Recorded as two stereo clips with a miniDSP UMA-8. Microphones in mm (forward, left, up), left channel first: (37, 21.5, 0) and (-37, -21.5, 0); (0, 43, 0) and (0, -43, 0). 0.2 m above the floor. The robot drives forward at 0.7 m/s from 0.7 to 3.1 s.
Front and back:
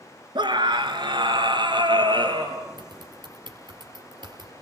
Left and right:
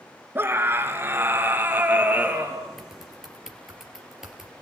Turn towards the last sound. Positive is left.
turn(degrees=-175)